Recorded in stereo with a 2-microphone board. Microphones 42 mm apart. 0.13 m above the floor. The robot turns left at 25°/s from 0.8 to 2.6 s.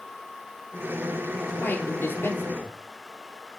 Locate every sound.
1.6 s a man speaking: 45° left (ahead or behind), 3 m; by 2.8 s 60° left (ahead or behind), 3 m